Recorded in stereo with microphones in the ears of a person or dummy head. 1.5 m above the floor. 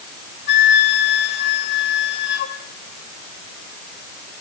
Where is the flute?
65° left (ahead or behind), 2.5 m.